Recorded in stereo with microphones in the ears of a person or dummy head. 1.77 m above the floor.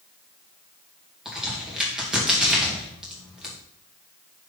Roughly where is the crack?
Centre.